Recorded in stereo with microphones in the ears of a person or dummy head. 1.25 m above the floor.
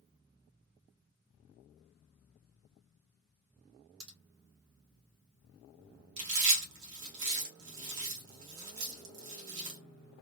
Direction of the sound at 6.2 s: 60° right (ahead or behind).